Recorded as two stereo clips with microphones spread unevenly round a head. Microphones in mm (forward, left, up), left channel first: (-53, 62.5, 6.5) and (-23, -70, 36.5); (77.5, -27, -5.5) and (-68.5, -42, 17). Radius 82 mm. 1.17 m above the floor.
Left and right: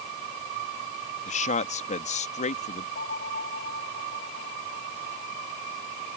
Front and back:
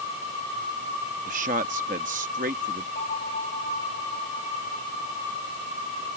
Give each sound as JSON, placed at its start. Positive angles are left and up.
{"t": 1.3, "sound": "a man speaking", "azimuth_deg": 135}
{"t": 3.0, "sound": "a bell", "azimuth_deg": 60}